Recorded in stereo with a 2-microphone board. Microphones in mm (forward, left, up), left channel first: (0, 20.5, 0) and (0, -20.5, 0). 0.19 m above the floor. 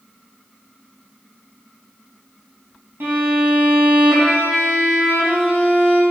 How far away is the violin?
About 3.5 m.